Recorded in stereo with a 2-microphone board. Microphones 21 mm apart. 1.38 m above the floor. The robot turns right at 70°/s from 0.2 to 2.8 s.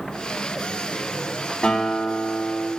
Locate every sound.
1.6 s a guitar: 130° left, 7.5 m; by 2.7 s 155° right, 7.5 m